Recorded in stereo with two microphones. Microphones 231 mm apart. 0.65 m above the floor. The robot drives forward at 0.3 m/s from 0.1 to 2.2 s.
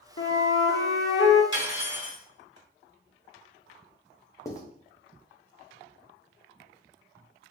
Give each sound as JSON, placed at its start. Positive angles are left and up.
{"t": 0.2, "sound": "a flute", "side_deg": 80, "distance_m": 0.6}
{"t": 1.5, "sound": "cutlery clinking", "side_deg": 55, "distance_m": 1.2}
{"t": 4.5, "sound": "writing", "side_deg": 15, "distance_m": 0.6}